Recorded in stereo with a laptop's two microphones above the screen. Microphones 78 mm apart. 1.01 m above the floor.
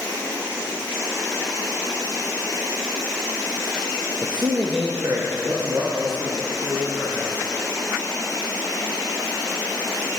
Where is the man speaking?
65° right (ahead or behind), 0.6 m; by 7.3 s 75° right (ahead or behind), 2.5 m.